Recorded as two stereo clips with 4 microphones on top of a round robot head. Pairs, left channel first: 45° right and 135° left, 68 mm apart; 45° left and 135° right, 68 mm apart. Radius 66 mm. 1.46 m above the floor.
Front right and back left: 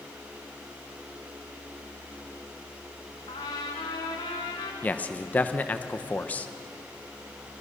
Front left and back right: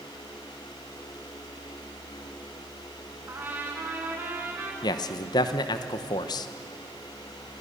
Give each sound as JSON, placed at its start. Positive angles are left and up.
{"t": 3.3, "sound": "a trumpet", "azimuth_deg": -75, "distance_m": 2.5}
{"t": 4.8, "sound": "a man speaking", "azimuth_deg": 20, "distance_m": 1.0}